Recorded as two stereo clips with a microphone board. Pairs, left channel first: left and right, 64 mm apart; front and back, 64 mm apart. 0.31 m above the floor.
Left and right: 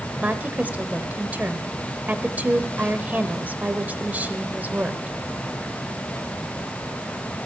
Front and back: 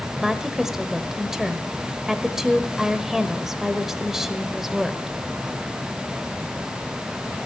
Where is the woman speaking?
105° right, 1.0 m.